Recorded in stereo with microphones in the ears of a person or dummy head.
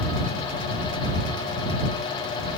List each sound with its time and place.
Only background noise.